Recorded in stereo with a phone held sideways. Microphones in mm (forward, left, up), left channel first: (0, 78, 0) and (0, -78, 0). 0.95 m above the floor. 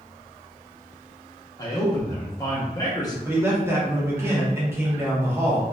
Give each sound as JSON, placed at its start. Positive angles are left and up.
{"t": 1.6, "sound": "a man speaking", "side_deg": 25, "distance_m": 0.7}
{"t": 3.2, "sound": "a man speaking", "side_deg": -15, "distance_m": 1.1}